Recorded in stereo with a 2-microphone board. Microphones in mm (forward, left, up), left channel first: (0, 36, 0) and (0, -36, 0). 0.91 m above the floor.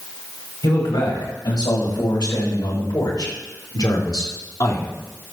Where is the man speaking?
75° left (ahead or behind), 6.5 m; by 4.9 s 50° left (ahead or behind), 2.5 m.